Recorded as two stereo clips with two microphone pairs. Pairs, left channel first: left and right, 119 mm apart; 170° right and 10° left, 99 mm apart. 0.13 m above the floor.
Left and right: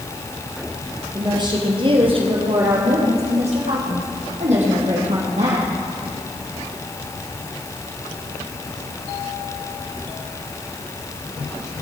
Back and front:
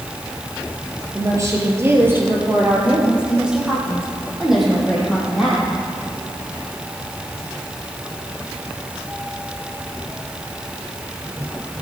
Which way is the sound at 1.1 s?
40° right.